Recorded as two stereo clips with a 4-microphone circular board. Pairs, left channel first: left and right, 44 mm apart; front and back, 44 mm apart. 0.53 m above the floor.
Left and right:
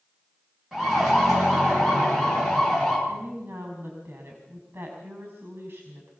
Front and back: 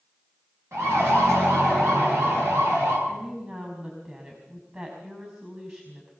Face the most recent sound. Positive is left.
turn(degrees=-125)